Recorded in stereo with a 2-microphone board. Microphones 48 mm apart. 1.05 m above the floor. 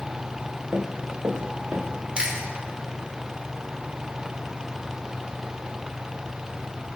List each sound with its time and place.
0.7 s running footsteps: 75° right (ahead or behind), 4 m
2.2 s chewing: 20° right (ahead or behind), 3 m